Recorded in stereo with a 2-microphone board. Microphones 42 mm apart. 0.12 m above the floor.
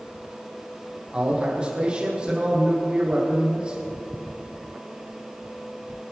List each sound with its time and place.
1.1 s a man speaking: 20° right (ahead or behind), 5 m